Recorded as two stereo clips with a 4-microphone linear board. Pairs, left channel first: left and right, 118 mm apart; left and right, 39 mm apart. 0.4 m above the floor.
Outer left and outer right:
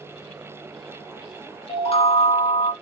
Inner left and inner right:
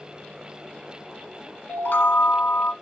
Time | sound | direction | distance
1.7 | a chime | 60° left (ahead or behind) | 0.6 m